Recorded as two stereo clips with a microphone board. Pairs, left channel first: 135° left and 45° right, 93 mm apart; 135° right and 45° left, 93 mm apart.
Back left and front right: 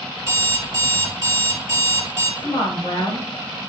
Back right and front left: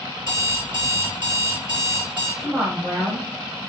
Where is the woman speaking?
100° left, 1.9 m.